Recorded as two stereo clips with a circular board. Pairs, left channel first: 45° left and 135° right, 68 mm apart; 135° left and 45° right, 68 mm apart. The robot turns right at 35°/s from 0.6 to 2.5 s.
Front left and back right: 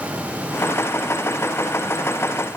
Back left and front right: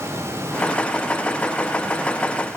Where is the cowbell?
No cowbell in this recording.